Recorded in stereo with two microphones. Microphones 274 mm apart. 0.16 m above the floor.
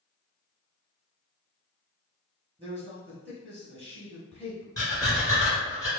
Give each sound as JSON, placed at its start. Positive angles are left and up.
{"t": 2.6, "sound": "a man speaking", "side_deg": -20, "distance_m": 1.0}
{"t": 4.8, "sound": "breathing", "side_deg": 10, "distance_m": 2.0}